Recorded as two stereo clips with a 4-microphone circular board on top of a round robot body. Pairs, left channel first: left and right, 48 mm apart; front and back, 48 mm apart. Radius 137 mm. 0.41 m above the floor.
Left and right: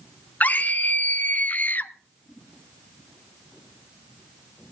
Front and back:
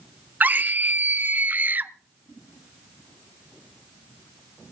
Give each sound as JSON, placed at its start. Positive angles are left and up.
{"t": 0.4, "sound": "a scream", "azimuth_deg": 135, "distance_m": 1.4}